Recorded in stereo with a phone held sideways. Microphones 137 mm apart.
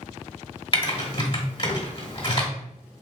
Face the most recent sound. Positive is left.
turn(degrees=40)  # may be behind; listen again after turning